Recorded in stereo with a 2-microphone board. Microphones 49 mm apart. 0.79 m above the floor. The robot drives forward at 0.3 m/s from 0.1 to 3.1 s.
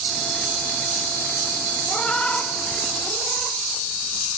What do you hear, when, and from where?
1.9 s a cat meowing: 20° left (ahead or behind), 0.6 m; by 3.6 s 25° left (ahead or behind), 0.5 m